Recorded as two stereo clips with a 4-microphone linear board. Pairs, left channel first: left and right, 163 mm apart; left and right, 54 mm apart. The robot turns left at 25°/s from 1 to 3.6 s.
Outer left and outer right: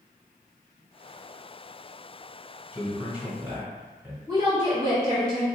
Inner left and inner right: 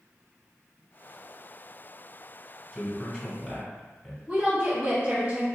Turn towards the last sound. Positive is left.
turn(degrees=-25)  # may be behind; listen again after turning